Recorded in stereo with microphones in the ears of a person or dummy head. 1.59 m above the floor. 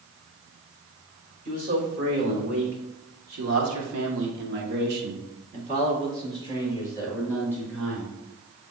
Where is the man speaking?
45° right (ahead or behind), 3 m; by 8.2 s 10° right (ahead or behind), 3.5 m.